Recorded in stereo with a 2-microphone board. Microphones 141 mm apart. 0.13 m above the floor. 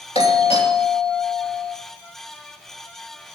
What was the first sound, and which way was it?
A doorbell, 50° left (ahead or behind).